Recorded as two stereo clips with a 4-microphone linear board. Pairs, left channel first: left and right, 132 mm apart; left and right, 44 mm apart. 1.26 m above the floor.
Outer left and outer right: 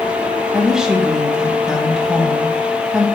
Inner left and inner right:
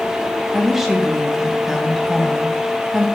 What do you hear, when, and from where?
0.5 s a woman speaking: 5° right (ahead or behind), 1.6 m